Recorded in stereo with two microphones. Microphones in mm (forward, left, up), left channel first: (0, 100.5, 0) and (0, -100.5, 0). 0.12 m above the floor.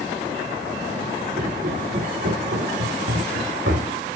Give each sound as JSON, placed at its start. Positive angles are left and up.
{"t": 1.4, "sound": "footsteps", "side_deg": -40, "distance_m": 2.0}